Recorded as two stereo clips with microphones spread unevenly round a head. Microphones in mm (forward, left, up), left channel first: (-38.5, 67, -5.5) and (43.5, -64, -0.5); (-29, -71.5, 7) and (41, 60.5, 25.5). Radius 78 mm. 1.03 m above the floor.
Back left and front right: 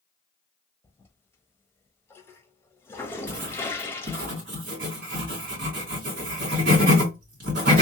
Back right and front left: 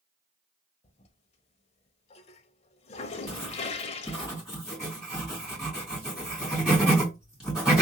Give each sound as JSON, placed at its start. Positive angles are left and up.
{"t": 0.8, "sound": "a toilet flushing", "azimuth_deg": -165, "distance_m": 0.5}
{"t": 3.3, "sound": "writing", "azimuth_deg": -25, "distance_m": 2.0}